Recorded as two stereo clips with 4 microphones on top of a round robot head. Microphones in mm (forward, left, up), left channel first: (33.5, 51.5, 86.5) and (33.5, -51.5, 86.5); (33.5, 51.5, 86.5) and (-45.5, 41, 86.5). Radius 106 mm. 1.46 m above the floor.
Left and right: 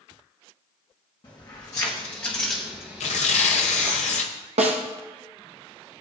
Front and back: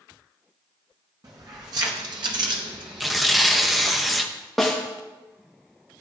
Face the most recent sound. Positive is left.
turn(degrees=-80)